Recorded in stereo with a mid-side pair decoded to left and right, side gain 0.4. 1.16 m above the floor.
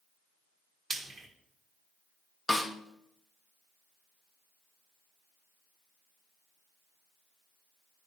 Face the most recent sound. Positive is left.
turn(degrees=15)